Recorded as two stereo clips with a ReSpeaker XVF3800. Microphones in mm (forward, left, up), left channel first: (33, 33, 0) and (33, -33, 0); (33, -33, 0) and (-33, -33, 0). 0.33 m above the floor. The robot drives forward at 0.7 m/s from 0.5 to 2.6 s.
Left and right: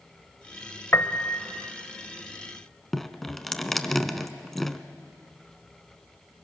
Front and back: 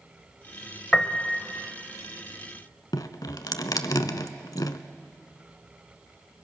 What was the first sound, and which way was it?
A piano, 70° left.